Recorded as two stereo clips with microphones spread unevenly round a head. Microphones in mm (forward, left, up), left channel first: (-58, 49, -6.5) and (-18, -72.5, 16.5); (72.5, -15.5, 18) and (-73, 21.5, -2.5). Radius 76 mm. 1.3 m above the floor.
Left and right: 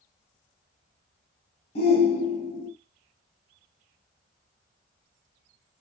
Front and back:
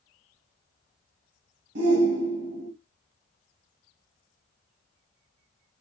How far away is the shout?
About 1.3 m.